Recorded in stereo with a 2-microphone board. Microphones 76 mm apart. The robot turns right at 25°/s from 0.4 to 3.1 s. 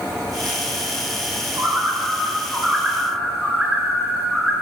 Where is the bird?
45° right, 4 m; by 4.5 s 5° right, 4 m.